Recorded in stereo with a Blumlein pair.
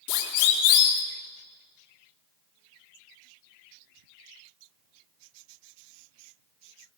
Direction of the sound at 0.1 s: 45° left.